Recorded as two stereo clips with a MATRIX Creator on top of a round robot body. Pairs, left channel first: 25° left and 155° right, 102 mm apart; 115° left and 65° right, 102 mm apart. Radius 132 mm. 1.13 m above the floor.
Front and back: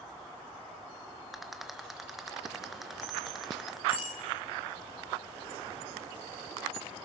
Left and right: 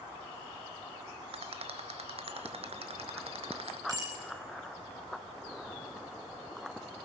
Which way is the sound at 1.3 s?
70° right.